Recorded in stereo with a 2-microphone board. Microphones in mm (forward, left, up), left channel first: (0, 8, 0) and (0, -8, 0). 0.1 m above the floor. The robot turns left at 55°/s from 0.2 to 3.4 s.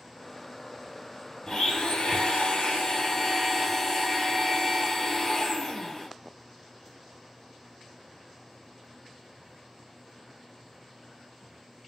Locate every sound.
1.5 s a blender: 135° left, 0.8 m; by 6.1 s 30° left, 0.8 m